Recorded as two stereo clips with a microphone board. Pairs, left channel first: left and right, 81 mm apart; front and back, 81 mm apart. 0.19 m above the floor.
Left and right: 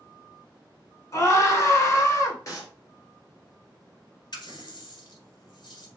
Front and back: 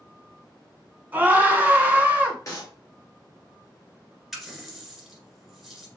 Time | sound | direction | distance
1.1 | a scream | 120° left | 1.6 m
2.5 | a clap | 45° left | 2 m
4.3 | a running tap | 90° left | 1.6 m